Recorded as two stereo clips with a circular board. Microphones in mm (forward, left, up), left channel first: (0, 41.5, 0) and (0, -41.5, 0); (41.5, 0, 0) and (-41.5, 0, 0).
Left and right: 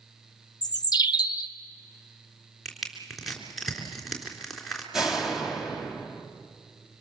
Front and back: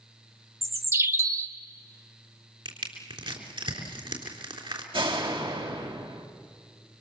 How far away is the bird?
About 0.9 m.